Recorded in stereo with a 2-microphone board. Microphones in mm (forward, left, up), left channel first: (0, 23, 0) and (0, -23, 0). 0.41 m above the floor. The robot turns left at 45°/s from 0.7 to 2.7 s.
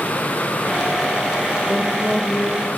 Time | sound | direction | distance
1.7 | a woman speaking | 5° right (ahead or behind) | 1.2 m